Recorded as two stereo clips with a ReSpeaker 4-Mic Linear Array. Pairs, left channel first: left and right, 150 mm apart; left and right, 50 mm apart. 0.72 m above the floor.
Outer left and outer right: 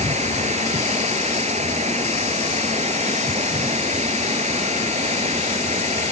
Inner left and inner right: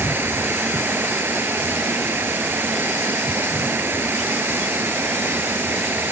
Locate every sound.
0.0 s running water: 50° right (ahead or behind)